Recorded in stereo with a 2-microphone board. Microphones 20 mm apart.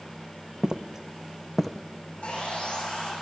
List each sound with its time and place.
0.6 s footsteps: 30° right (ahead or behind), 1.4 m; by 1.8 s 15° left (ahead or behind), 1.4 m
2.2 s sawing: 70° left (ahead or behind), 10 m